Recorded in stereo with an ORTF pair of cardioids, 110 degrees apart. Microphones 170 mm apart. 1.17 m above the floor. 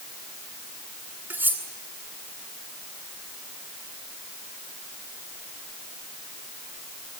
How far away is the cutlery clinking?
About 8 m.